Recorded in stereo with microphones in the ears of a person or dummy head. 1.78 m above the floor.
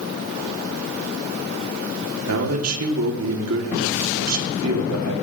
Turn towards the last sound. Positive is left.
turn(degrees=-85)